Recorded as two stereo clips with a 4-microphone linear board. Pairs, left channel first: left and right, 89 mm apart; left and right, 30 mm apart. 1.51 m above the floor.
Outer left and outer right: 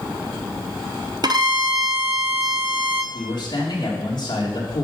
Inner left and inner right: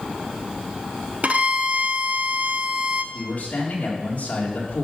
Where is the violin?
50° right (ahead or behind), 0.9 m.